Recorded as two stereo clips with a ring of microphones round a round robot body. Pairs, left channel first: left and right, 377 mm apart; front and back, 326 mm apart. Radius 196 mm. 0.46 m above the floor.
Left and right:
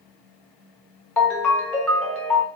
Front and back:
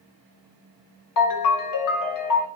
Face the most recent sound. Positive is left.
turn(degrees=5)